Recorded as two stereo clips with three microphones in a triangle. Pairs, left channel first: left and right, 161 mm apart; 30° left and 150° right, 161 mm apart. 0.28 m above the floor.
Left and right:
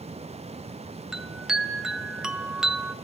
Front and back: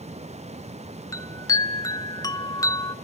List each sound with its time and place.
1.1 s a chime: 10° right, 1.1 m